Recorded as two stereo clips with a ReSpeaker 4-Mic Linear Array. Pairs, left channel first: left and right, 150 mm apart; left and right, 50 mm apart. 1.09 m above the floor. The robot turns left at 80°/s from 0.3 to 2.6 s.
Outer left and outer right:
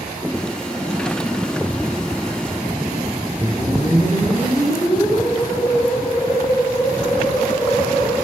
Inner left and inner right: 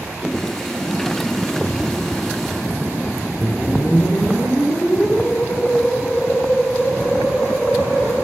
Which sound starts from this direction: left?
A whoosh, at 3.4 s.